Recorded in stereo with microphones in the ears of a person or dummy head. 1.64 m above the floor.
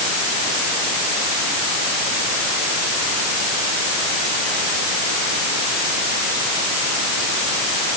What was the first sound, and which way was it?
Only background noise.